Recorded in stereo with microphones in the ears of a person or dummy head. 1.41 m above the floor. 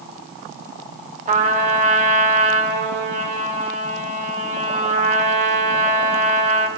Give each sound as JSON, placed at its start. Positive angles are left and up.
{"t": 1.3, "sound": "a trumpet", "side_deg": -40, "distance_m": 0.7}